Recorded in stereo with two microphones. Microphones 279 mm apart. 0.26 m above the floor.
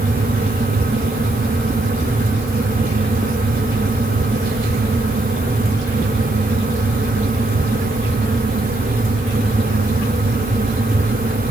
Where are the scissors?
I don't hear scissors.